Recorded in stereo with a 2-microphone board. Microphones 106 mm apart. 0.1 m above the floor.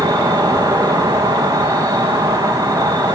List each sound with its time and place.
0.0 s an insect: 40° right (ahead or behind), 3.5 m